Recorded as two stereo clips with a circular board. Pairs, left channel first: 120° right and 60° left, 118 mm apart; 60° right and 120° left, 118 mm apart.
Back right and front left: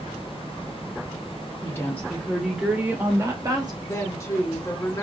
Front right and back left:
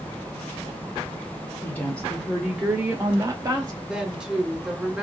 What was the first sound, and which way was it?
A woman speaking, 105° right.